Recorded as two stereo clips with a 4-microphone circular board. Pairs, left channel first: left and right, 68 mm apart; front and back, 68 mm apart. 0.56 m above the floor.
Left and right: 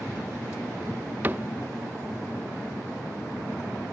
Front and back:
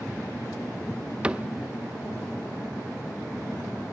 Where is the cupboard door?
120° right, 0.8 m.